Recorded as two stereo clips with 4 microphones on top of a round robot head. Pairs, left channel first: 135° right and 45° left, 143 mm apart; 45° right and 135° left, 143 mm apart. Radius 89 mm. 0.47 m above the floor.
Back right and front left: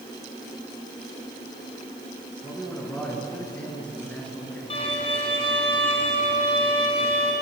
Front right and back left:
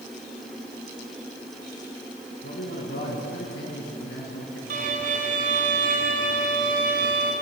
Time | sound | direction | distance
2.4 | a man speaking | 55° right | 6.5 m
4.7 | a violin | 170° left | 3 m